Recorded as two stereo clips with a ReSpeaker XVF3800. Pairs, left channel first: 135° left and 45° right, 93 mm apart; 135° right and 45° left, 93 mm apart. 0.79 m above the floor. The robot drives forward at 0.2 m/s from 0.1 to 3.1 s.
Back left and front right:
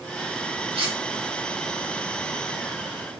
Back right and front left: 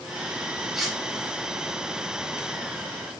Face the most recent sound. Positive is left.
turn(degrees=-75)